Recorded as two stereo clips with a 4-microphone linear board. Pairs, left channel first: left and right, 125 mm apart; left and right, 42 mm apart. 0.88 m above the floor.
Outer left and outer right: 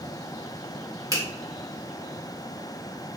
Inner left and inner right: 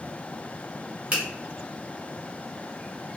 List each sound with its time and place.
1.1 s a finger snap: 30° right (ahead or behind), 1.1 m